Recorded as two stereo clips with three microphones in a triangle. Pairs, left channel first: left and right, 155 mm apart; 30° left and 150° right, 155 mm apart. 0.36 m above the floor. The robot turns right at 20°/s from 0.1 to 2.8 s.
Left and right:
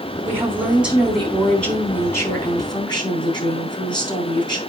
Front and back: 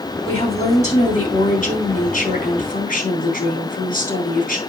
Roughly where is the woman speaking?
Ahead.